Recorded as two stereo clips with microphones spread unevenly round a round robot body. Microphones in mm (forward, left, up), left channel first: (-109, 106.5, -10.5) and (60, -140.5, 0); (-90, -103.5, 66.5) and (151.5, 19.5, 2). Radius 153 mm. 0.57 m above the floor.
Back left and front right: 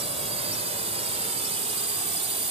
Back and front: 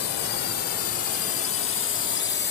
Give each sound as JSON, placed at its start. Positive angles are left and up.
{"t": 0.0, "sound": "a drone", "azimuth_deg": -125}